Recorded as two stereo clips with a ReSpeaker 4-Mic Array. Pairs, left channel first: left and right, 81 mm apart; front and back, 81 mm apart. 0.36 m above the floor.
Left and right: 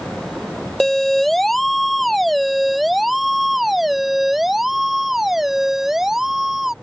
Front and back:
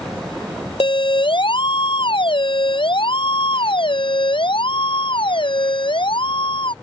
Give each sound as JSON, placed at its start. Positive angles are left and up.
{"t": 0.8, "sound": "a siren", "azimuth_deg": 0}